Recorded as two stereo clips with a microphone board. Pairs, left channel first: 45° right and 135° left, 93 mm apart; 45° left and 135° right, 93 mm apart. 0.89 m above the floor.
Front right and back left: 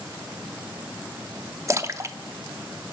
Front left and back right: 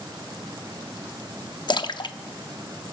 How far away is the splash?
About 0.7 m.